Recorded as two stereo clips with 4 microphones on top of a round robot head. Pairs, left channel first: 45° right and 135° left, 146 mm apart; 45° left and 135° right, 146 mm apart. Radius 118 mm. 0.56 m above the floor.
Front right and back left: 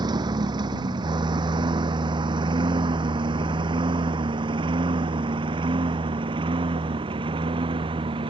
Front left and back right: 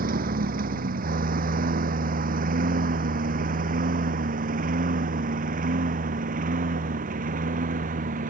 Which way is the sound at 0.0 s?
160° right.